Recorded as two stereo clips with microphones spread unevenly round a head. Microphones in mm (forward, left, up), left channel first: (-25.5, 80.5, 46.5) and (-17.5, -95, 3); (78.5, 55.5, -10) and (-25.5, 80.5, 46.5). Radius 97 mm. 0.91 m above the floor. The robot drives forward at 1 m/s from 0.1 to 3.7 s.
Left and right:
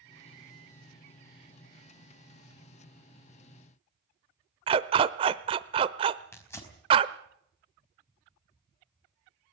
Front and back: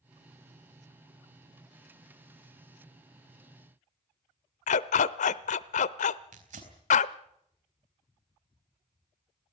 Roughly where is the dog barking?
Ahead.